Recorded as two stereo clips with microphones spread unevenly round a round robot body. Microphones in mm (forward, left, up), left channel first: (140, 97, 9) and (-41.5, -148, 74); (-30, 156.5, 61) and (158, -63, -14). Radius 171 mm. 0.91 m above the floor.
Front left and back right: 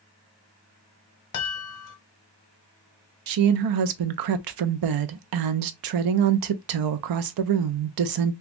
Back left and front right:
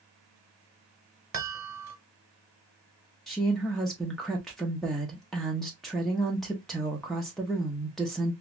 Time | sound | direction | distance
1.3 | a chime | 10° left | 1.0 m
3.3 | a woman speaking | 130° right | 0.5 m